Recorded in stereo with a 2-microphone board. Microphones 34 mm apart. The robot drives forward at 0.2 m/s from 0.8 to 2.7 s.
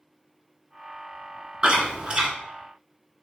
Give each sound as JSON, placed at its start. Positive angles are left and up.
{"t": 1.6, "sound": "chewing", "side_deg": -30, "distance_m": 1.0}